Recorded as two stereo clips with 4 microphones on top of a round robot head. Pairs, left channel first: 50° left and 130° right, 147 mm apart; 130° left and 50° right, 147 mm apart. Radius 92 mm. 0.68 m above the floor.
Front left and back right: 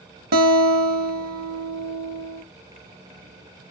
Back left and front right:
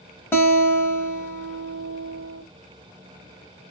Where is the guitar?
155° right, 0.8 m.